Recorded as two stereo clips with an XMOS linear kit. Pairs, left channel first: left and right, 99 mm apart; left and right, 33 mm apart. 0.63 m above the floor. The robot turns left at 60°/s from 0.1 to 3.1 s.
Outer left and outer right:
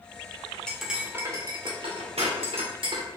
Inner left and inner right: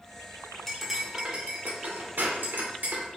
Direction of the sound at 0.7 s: 10° left (ahead or behind).